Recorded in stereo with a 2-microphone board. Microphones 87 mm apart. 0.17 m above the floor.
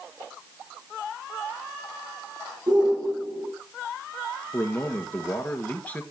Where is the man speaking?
20° left (ahead or behind), 2 m.